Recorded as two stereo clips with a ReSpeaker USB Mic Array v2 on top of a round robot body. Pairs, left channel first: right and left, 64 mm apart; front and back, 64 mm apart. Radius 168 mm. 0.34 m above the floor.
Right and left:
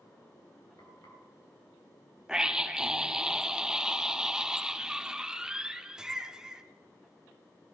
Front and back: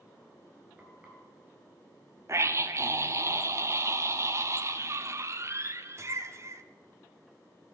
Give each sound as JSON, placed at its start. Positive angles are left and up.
{"t": 0.8, "sound": "frying", "azimuth_deg": -110, "distance_m": 3.5}
{"t": 2.3, "sound": "a scream", "azimuth_deg": 165, "distance_m": 1.2}